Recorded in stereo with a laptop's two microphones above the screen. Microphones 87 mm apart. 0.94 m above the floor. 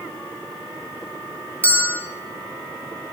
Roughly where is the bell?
Centre.